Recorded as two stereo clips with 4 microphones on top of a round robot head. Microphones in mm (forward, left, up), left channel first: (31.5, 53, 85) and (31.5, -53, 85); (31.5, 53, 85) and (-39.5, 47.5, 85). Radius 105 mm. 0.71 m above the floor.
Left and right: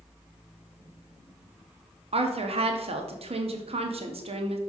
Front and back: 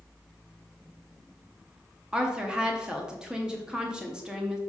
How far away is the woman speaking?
About 1.1 m.